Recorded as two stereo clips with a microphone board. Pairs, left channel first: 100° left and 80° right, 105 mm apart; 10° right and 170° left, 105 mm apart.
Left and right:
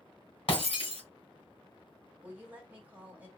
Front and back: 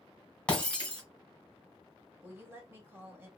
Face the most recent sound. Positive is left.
turn(degrees=-140)